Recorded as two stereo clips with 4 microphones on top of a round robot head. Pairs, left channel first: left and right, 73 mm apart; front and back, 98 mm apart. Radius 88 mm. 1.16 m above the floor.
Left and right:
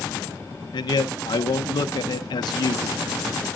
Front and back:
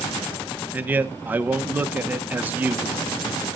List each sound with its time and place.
0.7 s a man speaking: 105° left, 0.9 m